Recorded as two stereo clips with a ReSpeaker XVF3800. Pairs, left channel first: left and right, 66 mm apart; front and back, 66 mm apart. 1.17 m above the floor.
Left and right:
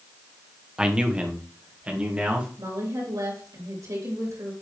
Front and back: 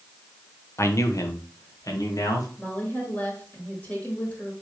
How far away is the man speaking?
About 0.9 m.